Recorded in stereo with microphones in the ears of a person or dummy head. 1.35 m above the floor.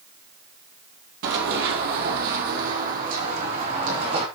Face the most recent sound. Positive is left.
turn(degrees=-40)  # may be behind; listen again after turning